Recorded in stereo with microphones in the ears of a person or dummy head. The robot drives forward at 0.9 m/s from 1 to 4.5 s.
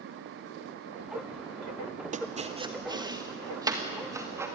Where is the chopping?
35° right (ahead or behind), 0.8 m; by 4.5 s 10° right (ahead or behind), 3 m.